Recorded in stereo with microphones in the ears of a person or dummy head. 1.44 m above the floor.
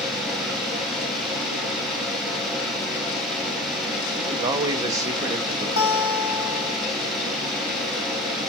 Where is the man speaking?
20° right (ahead or behind), 0.6 m.